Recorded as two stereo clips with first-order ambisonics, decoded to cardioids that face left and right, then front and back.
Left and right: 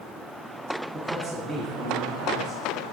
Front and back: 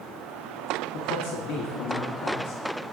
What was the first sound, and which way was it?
A man speaking, 15° right.